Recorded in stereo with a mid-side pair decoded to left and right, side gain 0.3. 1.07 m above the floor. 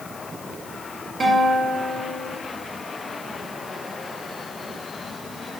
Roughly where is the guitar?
Ahead right.